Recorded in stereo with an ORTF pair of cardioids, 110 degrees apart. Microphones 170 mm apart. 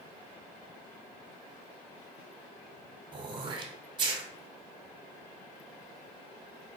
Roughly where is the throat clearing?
Ahead right.